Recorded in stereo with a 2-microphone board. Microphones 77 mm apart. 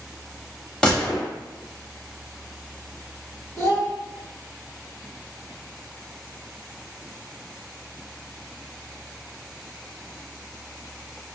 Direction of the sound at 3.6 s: 50° right (ahead or behind).